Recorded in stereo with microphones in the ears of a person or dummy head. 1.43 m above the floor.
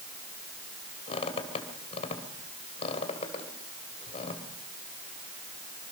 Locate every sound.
1.1 s a squeak: 35° left (ahead or behind), 2.5 m